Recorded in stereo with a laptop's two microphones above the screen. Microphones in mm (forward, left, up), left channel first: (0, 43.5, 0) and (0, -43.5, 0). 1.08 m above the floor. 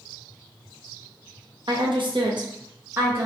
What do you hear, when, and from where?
1.7 s a woman speaking: 70° right (ahead or behind), 0.7 m; by 3.3 s 20° right (ahead or behind), 0.6 m